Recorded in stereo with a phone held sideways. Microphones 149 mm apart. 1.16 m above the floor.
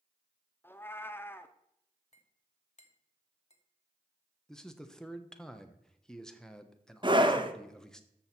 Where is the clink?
45° left (ahead or behind), 1.2 m.